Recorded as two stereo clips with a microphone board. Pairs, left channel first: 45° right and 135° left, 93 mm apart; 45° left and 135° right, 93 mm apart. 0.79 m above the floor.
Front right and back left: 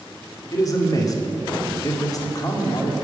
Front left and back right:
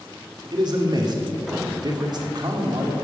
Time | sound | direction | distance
0.5 | a man speaking | 95° right | 1.8 m